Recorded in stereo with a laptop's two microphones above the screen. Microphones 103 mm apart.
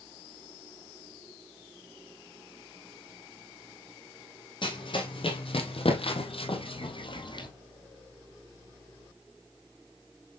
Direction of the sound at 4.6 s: 50° left (ahead or behind).